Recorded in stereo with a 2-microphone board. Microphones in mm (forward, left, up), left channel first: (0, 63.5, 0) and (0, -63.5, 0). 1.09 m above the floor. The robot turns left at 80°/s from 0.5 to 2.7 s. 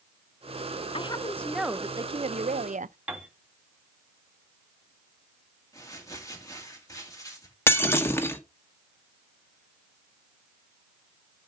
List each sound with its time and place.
0.9 s a woman speaking: 50° left, 0.5 m; by 3.0 s 95° right, 0.5 m
3.1 s a piano: 10° right (ahead or behind), 2 m
5.7 s crumpling: 25° left (ahead or behind), 2.5 m
7.7 s breaking glass: 20° left (ahead or behind), 1.2 m